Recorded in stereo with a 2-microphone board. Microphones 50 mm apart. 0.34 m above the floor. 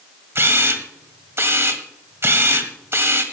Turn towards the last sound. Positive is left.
turn(degrees=-55)  # may be behind; listen again after turning